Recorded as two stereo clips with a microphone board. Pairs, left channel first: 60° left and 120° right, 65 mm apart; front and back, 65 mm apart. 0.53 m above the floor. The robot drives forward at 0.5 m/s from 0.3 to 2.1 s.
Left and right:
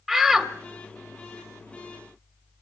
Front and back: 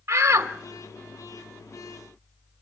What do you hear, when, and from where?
0.1 s a shout: 150° left, 1.2 m